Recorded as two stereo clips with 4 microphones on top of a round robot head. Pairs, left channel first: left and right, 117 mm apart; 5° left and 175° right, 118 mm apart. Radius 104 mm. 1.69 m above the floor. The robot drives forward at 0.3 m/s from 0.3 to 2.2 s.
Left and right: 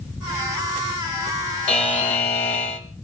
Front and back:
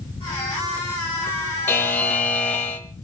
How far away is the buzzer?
About 1.7 m.